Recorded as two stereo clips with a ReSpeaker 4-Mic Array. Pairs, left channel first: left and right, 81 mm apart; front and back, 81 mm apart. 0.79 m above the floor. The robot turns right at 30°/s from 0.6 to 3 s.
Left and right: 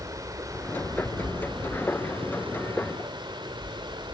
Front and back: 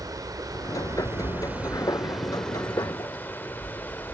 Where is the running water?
140° right, 1.8 m; by 4.2 s 65° right, 1.8 m.